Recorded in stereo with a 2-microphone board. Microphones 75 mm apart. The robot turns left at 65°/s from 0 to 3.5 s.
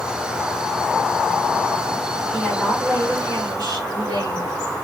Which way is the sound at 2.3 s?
Straight ahead.